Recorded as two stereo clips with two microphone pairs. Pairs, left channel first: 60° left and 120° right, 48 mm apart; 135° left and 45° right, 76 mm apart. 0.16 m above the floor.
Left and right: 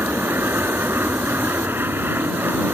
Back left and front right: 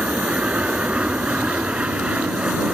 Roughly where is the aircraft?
Behind right.